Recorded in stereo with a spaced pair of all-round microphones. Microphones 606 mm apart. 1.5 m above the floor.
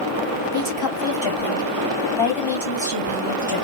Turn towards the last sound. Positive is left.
turn(degrees=45)  # may be behind; listen again after turning